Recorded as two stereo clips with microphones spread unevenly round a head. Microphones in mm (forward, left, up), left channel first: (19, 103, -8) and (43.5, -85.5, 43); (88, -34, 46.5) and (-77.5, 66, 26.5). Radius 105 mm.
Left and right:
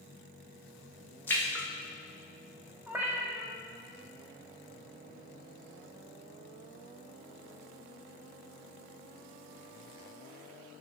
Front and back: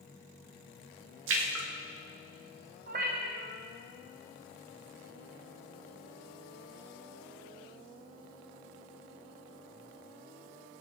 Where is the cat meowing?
160° right, 1.4 m.